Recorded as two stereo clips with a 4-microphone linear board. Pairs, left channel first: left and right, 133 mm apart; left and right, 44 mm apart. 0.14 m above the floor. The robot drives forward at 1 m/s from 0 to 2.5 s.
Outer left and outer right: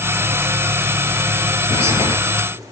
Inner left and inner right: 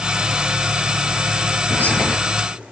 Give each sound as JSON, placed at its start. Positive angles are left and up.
{"t": 1.7, "sound": "whispering", "side_deg": 55, "distance_m": 2.5}